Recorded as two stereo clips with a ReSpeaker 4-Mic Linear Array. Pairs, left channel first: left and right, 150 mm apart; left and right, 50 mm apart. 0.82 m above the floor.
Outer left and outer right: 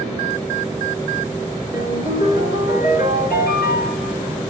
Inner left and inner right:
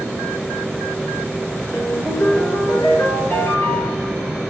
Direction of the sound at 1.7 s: 75° left (ahead or behind).